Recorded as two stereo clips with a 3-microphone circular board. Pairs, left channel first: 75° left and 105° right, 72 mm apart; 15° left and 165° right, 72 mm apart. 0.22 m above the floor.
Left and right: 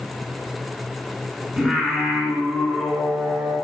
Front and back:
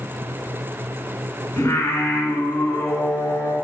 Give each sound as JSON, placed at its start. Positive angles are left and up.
{"t": 1.6, "sound": "singing", "azimuth_deg": -25, "distance_m": 1.9}